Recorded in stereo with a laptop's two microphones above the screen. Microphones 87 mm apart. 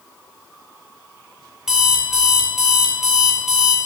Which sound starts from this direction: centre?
An alarm clock, at 1.7 s.